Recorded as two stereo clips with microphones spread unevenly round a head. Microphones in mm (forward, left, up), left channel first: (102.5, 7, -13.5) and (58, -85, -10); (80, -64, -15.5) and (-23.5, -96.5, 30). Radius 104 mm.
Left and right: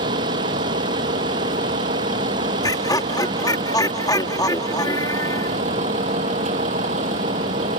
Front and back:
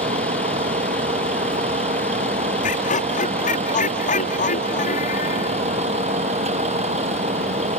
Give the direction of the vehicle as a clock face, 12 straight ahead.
5 o'clock.